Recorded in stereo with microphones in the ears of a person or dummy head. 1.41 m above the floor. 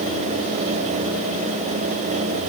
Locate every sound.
Only background noise.